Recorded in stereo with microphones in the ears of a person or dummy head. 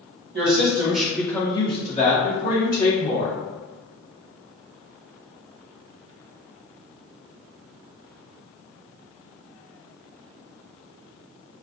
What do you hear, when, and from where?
0.3 s a woman speaking: 55° right (ahead or behind), 1.3 m; by 3.3 s 60° left (ahead or behind), 3.5 m